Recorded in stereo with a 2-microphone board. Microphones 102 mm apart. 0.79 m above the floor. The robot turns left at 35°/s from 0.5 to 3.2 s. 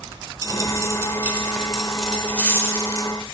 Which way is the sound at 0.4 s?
135° right.